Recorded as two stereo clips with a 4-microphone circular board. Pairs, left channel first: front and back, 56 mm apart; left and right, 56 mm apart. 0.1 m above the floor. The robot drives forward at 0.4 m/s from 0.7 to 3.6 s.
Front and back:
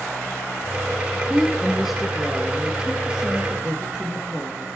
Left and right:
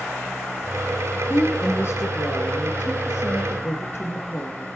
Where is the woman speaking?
85° left, 1.8 m; by 4.7 s 120° left, 2.0 m.